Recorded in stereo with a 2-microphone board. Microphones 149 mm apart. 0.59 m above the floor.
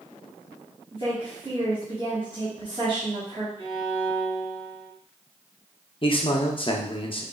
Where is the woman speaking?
35° right (ahead or behind), 1.2 m.